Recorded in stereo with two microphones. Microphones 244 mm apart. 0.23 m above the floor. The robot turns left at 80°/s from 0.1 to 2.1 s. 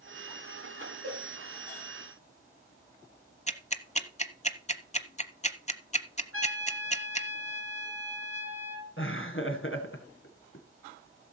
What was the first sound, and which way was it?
A cowbell, 70° right (ahead or behind).